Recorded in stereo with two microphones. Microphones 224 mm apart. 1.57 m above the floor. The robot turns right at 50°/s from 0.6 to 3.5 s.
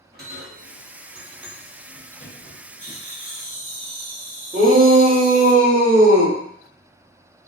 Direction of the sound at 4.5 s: 35° right (ahead or behind).